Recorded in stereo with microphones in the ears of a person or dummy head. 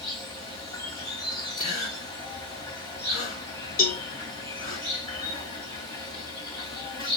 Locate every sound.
0.0 s an insect: 20° left (ahead or behind), 1.9 m
1.6 s a gasp: 40° left (ahead or behind), 2 m
3.8 s a cowbell: 45° left (ahead or behind), 0.6 m